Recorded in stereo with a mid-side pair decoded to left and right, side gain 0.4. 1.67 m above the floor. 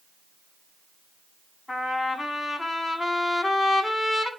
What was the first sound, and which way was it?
A trumpet, 40° left.